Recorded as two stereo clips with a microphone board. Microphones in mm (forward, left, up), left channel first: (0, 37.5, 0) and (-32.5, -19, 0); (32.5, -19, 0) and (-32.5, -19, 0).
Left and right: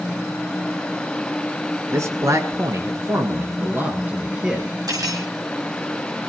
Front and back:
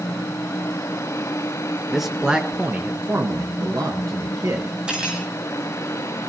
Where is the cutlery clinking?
105° right, 5.5 m.